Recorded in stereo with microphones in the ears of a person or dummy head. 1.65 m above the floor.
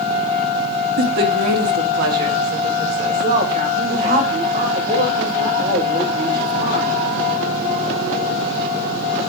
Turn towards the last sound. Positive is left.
turn(degrees=-50)  # may be behind; listen again after turning